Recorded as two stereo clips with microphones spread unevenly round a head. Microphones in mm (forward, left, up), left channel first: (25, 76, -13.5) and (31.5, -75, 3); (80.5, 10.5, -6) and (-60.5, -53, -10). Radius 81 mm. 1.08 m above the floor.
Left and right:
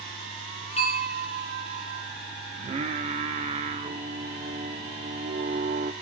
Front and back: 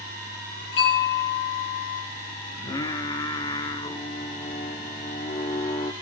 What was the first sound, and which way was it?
A bell, 45° left.